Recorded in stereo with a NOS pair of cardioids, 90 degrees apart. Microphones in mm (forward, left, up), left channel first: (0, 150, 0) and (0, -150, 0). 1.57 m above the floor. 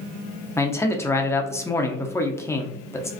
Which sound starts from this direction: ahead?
A man speaking, at 0.6 s.